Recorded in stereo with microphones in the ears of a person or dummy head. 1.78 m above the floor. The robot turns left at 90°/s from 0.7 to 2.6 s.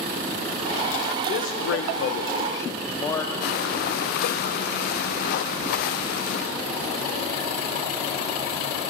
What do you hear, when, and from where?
1.3 s a man speaking: 140° left, 0.9 m; by 3.3 s 20° left, 0.9 m
3.4 s breathing: 60° left (ahead or behind), 0.7 m